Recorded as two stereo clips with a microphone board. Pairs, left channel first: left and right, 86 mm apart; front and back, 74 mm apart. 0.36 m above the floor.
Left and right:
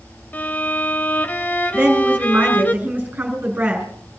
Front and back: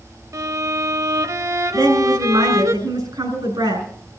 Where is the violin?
155° left, 0.8 m.